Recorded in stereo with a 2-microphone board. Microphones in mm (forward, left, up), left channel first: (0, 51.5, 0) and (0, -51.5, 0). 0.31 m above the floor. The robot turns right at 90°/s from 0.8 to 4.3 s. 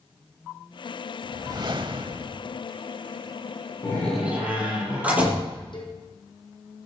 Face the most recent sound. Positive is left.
turn(degrees=50)  # may be behind; listen again after turning